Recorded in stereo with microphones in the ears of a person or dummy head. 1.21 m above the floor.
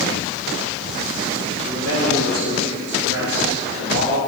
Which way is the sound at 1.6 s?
40° right (ahead or behind).